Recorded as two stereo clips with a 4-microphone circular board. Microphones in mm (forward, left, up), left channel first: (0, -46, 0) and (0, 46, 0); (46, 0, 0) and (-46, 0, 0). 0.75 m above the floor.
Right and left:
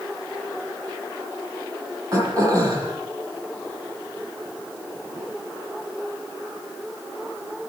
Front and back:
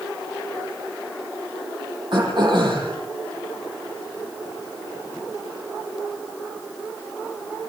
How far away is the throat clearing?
About 8.5 m.